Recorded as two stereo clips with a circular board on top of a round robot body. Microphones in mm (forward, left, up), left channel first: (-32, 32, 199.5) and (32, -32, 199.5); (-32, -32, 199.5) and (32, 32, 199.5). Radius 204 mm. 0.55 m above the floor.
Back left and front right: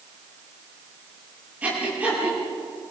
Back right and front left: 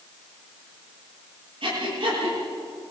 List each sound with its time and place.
1.6 s breathing: 30° left, 9.5 m